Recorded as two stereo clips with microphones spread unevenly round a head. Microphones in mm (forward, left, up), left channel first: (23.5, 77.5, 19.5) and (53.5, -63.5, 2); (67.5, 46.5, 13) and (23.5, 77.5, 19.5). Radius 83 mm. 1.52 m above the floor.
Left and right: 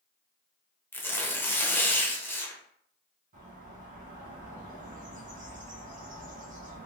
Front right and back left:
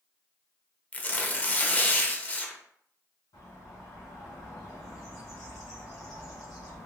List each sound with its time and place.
0.9 s tearing paper: 25° left, 0.7 m
3.3 s a bird: 45° right, 1.0 m